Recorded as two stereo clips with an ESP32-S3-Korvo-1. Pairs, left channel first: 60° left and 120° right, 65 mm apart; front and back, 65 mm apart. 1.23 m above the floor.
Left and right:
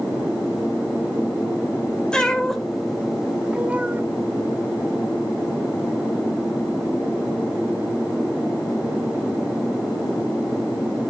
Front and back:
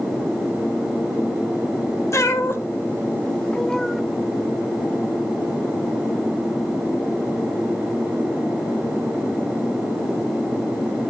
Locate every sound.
2.1 s a cat meowing: 15° right, 1.3 m; by 4.0 s 90° right, 1.0 m